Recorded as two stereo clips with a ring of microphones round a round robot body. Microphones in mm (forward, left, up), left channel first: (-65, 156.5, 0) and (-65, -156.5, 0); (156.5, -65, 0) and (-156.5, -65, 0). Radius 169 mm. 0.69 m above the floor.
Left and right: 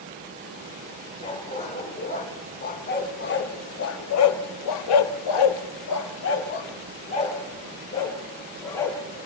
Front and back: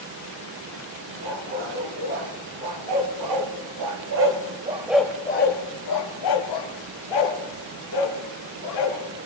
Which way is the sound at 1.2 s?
160° left.